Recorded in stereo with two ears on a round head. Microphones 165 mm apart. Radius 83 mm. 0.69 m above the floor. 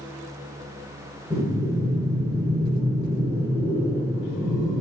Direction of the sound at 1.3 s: 10° right (ahead or behind).